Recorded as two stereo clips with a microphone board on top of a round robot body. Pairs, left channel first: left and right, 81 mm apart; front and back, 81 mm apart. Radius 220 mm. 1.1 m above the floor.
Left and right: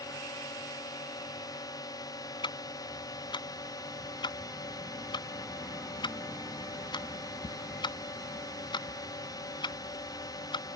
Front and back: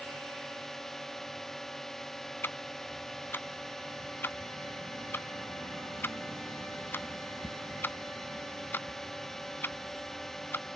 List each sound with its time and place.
0.0 s a drone: 85° left
2.4 s ticking: 65° left